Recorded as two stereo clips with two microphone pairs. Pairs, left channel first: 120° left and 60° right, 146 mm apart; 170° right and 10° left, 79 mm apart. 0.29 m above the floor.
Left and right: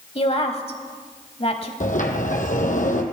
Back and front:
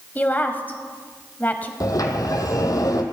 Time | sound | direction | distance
0.1 | a woman speaking | 135° left | 1.1 m
1.8 | a sliding door | 150° left | 1.5 m